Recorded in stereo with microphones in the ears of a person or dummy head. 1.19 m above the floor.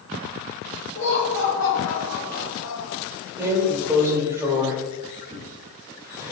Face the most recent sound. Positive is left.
turn(degrees=-15)  # may be behind; listen again after turning